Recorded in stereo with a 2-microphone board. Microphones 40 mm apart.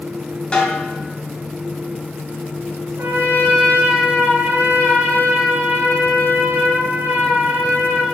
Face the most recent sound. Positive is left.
turn(degrees=-75)  # may be behind; listen again after turning